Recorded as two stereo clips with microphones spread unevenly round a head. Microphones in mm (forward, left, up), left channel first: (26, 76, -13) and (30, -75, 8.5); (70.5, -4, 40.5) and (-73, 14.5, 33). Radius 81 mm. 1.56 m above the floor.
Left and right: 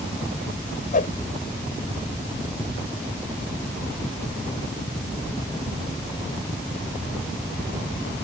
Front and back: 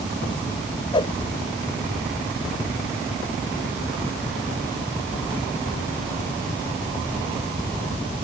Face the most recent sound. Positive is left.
turn(degrees=55)